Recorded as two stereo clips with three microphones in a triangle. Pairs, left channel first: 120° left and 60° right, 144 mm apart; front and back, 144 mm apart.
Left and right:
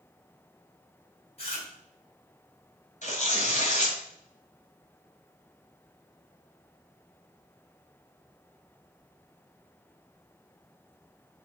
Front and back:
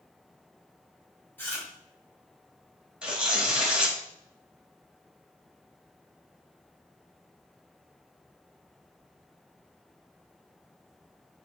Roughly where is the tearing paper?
Left.